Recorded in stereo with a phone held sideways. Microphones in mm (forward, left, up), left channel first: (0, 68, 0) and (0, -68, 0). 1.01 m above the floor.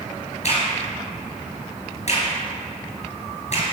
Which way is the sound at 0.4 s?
55° left (ahead or behind).